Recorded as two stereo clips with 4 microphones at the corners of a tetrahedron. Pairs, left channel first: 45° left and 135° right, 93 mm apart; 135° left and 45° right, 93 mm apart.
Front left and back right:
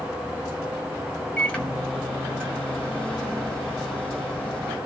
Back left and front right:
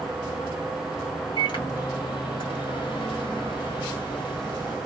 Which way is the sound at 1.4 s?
120° left.